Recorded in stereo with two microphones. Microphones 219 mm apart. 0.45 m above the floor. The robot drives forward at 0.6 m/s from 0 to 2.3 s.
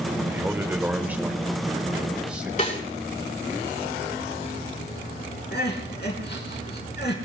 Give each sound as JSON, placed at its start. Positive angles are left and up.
{"t": 0.3, "sound": "a man speaking", "side_deg": -10, "distance_m": 1.0}
{"t": 2.6, "sound": "a snare drum", "side_deg": 35, "distance_m": 5.5}
{"t": 5.5, "sound": "crying", "side_deg": 50, "distance_m": 4.0}